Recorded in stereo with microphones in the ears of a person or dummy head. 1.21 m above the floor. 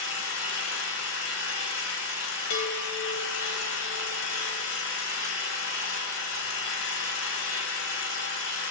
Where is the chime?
85° left, 4 m.